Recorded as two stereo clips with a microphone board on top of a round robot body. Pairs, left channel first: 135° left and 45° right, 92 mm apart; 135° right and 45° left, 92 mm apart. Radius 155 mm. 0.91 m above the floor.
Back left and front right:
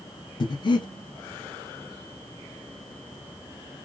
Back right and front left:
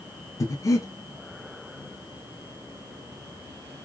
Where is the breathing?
170° left, 0.7 m.